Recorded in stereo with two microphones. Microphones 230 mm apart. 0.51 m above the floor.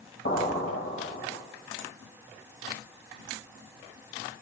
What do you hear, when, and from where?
0.2 s an explosion: 50° left (ahead or behind), 1.8 m